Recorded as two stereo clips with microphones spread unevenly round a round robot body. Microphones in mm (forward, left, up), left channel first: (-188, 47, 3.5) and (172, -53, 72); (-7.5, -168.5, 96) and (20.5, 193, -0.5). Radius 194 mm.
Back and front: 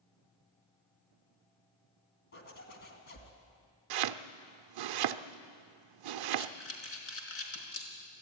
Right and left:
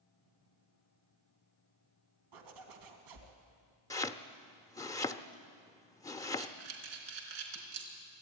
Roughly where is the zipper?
Left.